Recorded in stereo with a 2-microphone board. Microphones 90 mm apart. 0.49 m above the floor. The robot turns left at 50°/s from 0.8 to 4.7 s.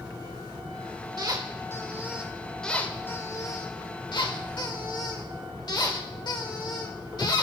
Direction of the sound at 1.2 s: 115° right.